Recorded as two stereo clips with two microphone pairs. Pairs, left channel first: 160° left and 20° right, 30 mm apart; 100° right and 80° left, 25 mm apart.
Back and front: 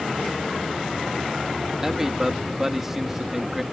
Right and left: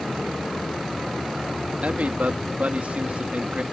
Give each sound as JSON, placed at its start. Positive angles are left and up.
{"t": 1.8, "sound": "a man speaking", "azimuth_deg": 55}